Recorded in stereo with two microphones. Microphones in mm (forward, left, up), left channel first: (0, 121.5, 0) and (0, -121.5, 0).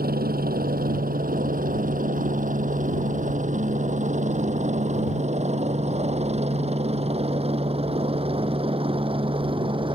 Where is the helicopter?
40° right (ahead or behind); by 9.9 s 20° right (ahead or behind).